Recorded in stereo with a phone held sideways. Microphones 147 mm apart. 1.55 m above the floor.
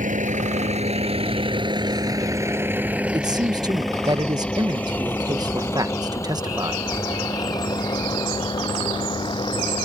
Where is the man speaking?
25° right (ahead or behind).